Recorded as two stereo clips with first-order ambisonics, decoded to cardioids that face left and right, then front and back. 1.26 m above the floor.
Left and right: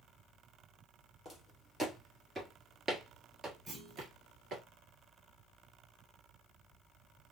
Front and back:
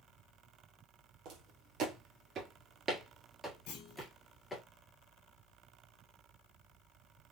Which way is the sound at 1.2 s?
Straight behind.